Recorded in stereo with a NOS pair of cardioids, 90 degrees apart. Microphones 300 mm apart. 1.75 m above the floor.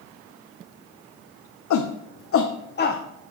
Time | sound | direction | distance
1.7 | a shout | 60° left | 1.1 m